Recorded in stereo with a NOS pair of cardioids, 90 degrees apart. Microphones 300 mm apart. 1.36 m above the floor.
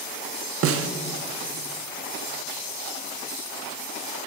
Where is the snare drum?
50° right, 0.7 m.